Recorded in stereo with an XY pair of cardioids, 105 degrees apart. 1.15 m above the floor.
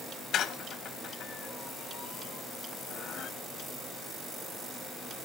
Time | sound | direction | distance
0.3 | a squeak | 65° left | 0.9 m